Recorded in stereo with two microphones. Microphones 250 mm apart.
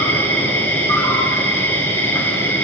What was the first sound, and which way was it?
An insect, 10° left (ahead or behind).